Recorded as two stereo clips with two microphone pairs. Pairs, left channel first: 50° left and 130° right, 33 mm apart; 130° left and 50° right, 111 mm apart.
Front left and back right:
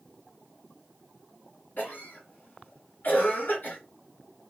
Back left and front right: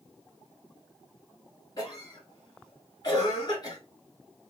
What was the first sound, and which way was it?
A cough, 85° left.